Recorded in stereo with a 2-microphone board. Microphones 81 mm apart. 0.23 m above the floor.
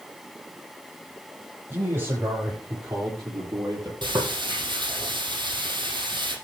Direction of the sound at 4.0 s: 65° right (ahead or behind).